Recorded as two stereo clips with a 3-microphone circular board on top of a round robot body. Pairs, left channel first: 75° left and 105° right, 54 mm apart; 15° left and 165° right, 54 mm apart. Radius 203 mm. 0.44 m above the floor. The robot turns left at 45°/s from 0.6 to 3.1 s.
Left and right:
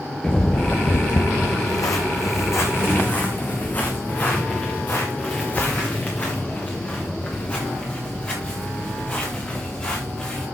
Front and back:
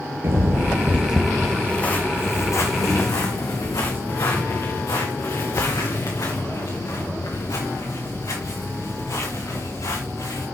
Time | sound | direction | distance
0.2 | footsteps | 155° left | 0.9 m